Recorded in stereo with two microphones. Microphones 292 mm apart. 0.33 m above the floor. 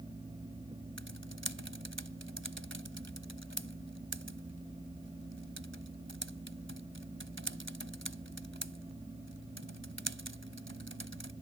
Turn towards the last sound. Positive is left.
turn(degrees=-40)  # may be behind; listen again after turning